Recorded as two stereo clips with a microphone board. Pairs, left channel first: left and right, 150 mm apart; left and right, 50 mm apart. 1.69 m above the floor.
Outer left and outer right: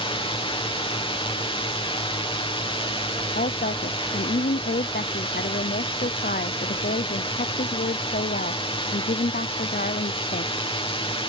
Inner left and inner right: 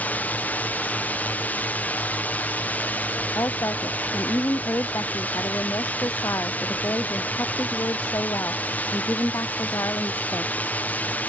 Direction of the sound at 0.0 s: 35° left (ahead or behind).